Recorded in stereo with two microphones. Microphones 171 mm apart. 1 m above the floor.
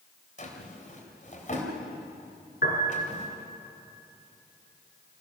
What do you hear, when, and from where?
0.4 s a drawer: 50° left (ahead or behind), 3.5 m
2.6 s a piano: 60° left (ahead or behind), 4.5 m